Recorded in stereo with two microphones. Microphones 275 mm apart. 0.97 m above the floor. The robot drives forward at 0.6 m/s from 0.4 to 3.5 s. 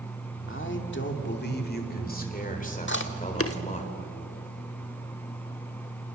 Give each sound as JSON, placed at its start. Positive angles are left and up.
{"t": 0.5, "sound": "a man speaking", "side_deg": 45, "distance_m": 2.0}
{"t": 2.9, "sound": "chewing", "side_deg": 40, "distance_m": 1.3}